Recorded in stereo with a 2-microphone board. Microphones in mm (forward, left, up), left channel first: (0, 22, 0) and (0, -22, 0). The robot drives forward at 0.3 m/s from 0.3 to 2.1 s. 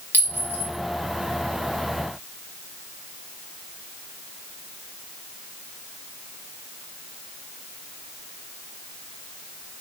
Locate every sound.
0.1 s a clink: 45° left (ahead or behind), 0.8 m; by 0.7 s 40° left (ahead or behind), 0.9 m